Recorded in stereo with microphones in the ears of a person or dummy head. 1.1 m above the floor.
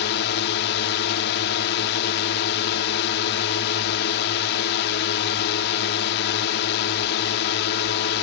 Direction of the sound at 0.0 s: 55° left (ahead or behind).